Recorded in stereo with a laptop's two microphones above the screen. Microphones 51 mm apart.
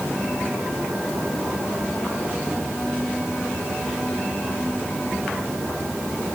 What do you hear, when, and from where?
Only background noise.